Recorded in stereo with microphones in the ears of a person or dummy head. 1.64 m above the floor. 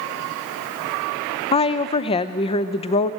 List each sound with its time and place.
1.5 s a woman speaking: 30° left (ahead or behind), 0.6 m